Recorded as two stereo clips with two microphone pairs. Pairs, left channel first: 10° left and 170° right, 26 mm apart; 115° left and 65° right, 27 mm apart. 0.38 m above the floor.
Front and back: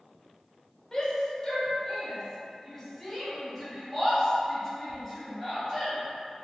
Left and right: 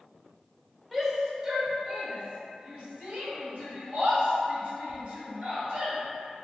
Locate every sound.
0.9 s a shout: 5° left, 1.0 m; by 6.0 s 85° right, 2.5 m